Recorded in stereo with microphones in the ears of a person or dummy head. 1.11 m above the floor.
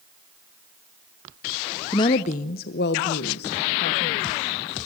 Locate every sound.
1.9 s a woman speaking: 20° left (ahead or behind), 0.6 m; by 4.8 s 55° left (ahead or behind), 2 m